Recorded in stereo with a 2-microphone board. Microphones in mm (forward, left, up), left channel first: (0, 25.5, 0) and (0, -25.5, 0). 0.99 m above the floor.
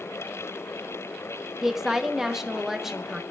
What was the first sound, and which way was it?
A woman speaking, 5° right (ahead or behind).